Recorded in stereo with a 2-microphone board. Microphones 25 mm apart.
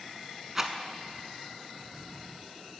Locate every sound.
0.6 s a rattle: 15° right (ahead or behind), 0.7 m